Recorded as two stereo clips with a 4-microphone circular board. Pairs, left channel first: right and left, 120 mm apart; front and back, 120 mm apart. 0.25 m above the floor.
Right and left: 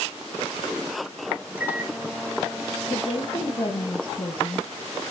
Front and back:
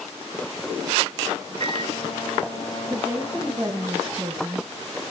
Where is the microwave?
20° left, 1.7 m.